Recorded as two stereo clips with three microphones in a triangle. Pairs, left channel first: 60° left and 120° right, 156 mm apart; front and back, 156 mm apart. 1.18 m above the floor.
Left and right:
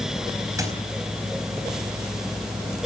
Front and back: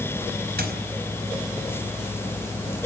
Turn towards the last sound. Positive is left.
turn(degrees=170)